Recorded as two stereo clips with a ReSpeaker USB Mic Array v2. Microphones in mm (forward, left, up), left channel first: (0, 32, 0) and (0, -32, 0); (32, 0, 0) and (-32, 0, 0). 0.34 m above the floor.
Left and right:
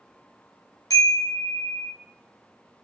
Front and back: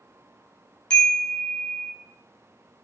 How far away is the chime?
About 1.4 m.